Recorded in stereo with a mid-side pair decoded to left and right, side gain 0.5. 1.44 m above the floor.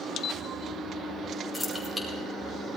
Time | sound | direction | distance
1.5 | keys jangling | 5° right | 4.5 m